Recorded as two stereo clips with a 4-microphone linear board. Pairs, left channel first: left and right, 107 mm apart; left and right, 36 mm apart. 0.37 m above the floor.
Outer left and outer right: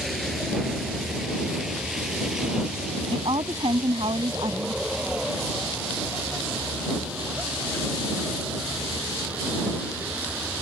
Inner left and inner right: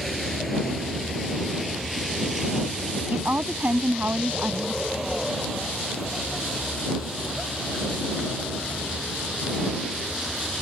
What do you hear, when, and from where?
0.0 s a vehicle: centre (ahead or behind); by 10.6 s 10° right (ahead or behind)
3.1 s a woman speaking: 55° right (ahead or behind)